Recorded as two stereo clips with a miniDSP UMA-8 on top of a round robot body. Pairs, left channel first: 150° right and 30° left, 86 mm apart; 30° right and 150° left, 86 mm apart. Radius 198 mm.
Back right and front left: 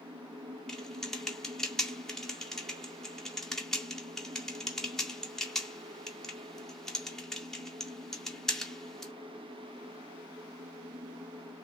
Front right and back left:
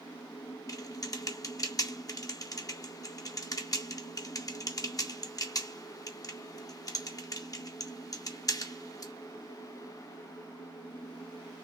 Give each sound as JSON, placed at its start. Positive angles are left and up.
{"t": 0.7, "sound": "typing on a keyboard", "azimuth_deg": -65, "distance_m": 2.0}